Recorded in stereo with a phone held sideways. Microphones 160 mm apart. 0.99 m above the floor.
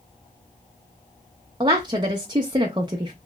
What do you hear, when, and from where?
1.6 s a woman speaking: 30° right (ahead or behind), 0.6 m